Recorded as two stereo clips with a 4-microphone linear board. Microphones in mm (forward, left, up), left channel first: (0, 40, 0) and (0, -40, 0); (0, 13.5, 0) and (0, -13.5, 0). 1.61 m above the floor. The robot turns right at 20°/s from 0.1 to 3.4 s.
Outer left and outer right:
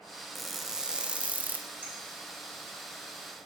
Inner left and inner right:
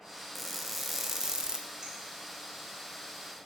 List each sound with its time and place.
0.3 s crushing: centre (ahead or behind), 0.8 m; by 1.7 s 25° right (ahead or behind), 0.8 m
1.8 s a clink: 20° right (ahead or behind), 4 m